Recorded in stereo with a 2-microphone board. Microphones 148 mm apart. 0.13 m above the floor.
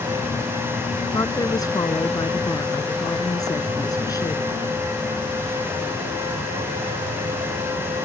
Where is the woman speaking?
25° left (ahead or behind).